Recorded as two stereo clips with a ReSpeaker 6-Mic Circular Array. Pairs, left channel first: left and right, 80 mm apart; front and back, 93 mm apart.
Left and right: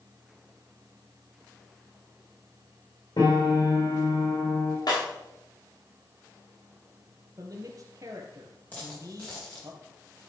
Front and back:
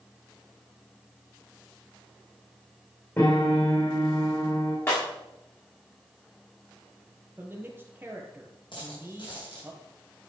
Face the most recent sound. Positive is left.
turn(degrees=20)